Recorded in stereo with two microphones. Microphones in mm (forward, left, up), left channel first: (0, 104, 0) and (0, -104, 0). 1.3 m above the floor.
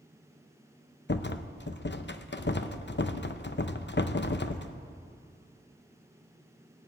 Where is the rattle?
60° left (ahead or behind), 0.7 m.